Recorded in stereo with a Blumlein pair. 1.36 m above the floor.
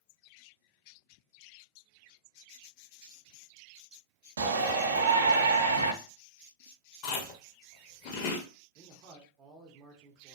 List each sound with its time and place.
4.4 s a shout: 65° right, 0.7 m
7.0 s chewing: 40° left, 0.6 m
8.8 s a man speaking: 35° right, 0.7 m